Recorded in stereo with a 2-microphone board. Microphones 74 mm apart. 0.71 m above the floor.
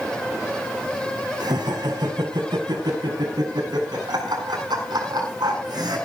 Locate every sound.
1.4 s laughter: 80° right, 6 m; by 6.0 s 75° right (ahead or behind), 8.5 m